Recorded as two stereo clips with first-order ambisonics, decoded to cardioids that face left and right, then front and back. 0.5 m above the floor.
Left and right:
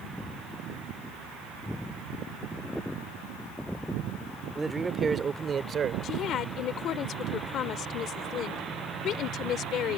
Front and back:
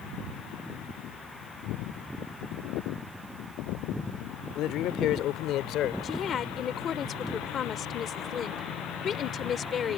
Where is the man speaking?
10° right; by 5.9 s 35° right.